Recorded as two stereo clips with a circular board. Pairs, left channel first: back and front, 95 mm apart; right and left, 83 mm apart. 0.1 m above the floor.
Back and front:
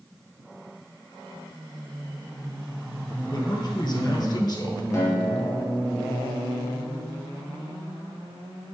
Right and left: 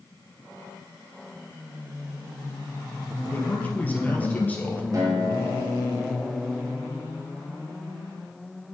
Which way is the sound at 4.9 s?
125° left.